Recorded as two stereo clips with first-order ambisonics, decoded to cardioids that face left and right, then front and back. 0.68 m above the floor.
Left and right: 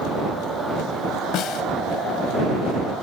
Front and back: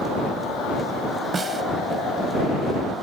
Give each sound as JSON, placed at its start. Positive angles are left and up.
{"t": 1.3, "sound": "a snare drum", "azimuth_deg": 110}